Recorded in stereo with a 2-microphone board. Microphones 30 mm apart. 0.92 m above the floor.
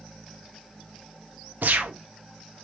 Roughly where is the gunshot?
Right.